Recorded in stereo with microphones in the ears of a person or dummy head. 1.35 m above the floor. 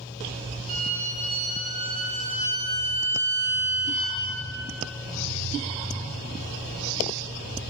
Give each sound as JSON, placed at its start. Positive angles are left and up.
{"t": 0.7, "sound": "a violin", "side_deg": -45, "distance_m": 1.7}